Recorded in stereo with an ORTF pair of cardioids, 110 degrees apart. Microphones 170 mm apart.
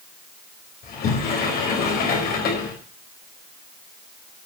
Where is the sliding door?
65° left, 4.5 m.